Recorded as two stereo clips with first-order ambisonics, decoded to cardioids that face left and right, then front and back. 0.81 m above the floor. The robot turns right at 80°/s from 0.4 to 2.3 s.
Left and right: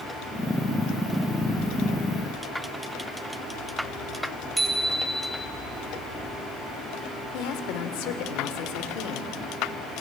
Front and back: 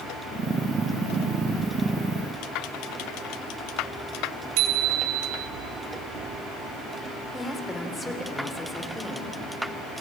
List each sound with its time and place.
4.6 s a bicycle bell: 170° right, 3 m
7.3 s a woman speaking: 85° left, 2.5 m